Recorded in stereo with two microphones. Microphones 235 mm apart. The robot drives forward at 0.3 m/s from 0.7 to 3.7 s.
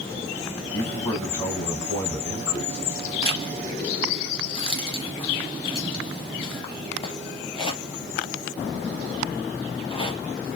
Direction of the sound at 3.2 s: 25° left (ahead or behind).